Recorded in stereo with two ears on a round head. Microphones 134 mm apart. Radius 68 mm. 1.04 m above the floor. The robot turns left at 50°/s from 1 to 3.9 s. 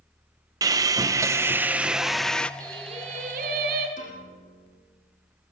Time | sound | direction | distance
0.6 | sawing | 25° right (ahead or behind) | 0.6 m
2.6 | singing | 20° right | 3 m
4.0 | a piano | 50° left (ahead or behind) | 9.5 m